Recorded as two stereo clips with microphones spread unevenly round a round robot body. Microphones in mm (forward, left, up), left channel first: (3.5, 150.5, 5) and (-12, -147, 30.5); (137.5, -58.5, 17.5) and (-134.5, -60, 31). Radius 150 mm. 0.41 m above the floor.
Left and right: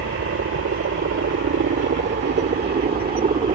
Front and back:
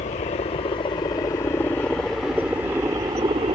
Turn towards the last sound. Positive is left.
turn(degrees=-135)